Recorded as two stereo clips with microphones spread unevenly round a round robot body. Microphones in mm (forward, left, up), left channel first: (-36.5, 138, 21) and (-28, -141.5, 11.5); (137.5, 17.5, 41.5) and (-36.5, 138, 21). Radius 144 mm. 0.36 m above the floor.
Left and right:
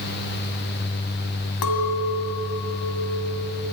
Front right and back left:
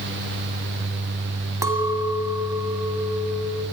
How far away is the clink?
About 2.5 m.